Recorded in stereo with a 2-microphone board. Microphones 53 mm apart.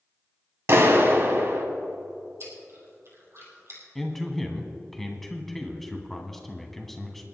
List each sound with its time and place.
0.7 s a clap: 50° right (ahead or behind), 1.7 m
2.4 s chewing: 55° right (ahead or behind), 3.5 m
4.0 s a man speaking: 5° left (ahead or behind), 1.8 m